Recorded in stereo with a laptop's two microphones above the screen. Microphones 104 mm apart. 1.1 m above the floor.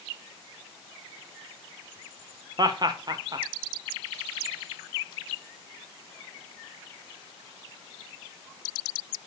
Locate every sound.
2.6 s laughter: 40° right (ahead or behind), 0.7 m